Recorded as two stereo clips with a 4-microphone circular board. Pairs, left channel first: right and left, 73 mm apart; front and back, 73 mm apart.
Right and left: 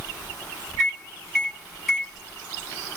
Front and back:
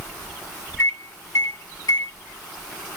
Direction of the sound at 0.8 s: Straight ahead.